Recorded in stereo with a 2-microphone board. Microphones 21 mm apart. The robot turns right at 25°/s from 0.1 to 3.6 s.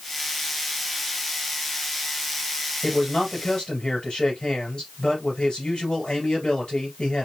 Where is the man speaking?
35° left (ahead or behind), 2.5 m; by 7.3 s 45° left (ahead or behind), 2.5 m.